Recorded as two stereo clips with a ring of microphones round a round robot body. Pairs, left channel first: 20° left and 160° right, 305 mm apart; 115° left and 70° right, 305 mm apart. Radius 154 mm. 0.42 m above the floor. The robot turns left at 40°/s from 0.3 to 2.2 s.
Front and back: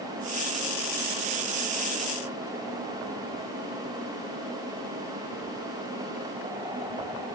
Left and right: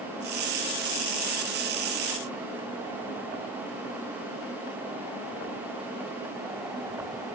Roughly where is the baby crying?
I don't hear a baby crying.